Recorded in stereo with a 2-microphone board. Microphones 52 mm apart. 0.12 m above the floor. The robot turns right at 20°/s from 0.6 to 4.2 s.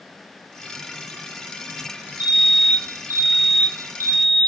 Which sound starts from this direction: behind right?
A fire alarm, at 2.2 s.